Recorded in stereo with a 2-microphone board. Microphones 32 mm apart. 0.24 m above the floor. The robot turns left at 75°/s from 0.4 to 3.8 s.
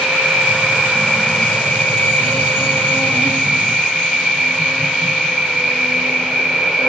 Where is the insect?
120° right, 3 m; by 6.9 s 15° right, 3 m.